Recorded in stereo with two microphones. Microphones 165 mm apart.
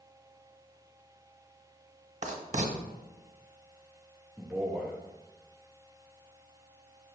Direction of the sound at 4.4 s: 5° right (ahead or behind).